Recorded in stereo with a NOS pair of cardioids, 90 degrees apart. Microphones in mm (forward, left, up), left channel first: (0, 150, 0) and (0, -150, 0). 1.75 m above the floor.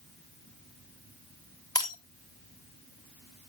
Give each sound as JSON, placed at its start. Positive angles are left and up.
{"t": 1.8, "sound": "breaking glass", "azimuth_deg": 15, "distance_m": 3.5}